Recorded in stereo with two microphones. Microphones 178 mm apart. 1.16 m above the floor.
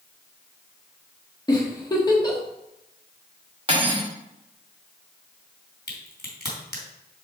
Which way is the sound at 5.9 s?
65° left (ahead or behind).